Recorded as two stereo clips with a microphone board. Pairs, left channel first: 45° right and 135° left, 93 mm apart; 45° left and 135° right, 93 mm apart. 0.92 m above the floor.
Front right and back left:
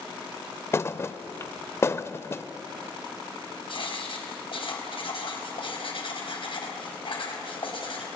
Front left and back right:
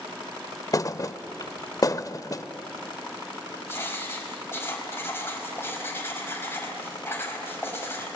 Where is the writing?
20° right, 4.5 m.